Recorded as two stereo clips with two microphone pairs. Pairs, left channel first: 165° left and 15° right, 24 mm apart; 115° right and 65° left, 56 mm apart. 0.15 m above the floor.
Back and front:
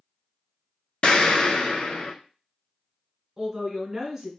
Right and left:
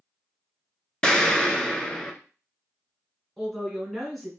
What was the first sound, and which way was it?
An explosion, 175° left.